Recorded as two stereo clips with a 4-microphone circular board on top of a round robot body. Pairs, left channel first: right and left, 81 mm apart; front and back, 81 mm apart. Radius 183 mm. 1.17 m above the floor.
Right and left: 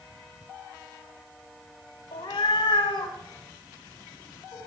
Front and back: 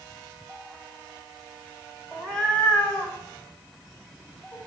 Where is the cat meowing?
85° right, 1.3 m; by 4.6 s 55° right, 2.5 m.